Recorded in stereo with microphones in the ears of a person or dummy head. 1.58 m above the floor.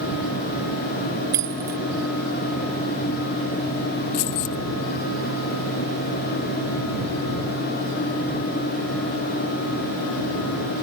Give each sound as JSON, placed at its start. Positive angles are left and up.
{"t": 1.3, "sound": "keys jangling", "side_deg": -15}
{"t": 4.1, "sound": "keys jangling", "side_deg": 45}